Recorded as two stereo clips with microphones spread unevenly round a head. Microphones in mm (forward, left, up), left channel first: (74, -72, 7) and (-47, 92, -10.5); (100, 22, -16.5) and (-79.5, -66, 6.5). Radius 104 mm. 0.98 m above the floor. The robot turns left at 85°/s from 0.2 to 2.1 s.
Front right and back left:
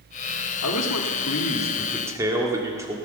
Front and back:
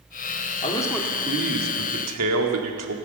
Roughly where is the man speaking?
Ahead right.